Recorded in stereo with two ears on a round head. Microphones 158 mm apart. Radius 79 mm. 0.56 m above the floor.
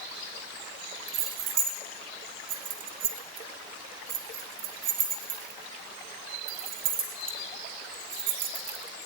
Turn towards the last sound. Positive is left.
turn(degrees=-50)  # may be behind; listen again after turning